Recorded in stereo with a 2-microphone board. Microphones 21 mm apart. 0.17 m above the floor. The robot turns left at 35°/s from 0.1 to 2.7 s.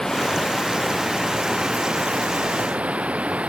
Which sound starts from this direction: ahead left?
Running water, at 0.0 s.